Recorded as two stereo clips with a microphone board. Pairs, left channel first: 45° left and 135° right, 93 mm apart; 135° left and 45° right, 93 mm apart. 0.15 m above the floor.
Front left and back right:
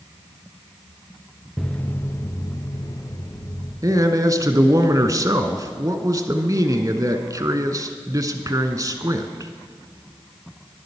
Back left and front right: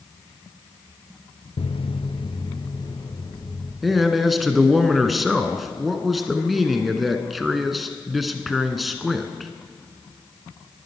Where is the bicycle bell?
I don't hear a bicycle bell.